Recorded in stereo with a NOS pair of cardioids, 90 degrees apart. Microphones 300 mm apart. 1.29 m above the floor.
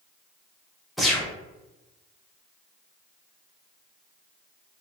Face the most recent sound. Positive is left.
turn(degrees=0)